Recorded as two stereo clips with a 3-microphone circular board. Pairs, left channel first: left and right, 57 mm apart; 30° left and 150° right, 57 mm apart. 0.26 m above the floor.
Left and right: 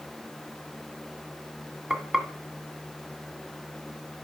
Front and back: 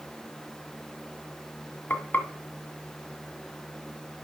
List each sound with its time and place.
1.9 s frying: 15° right, 1.8 m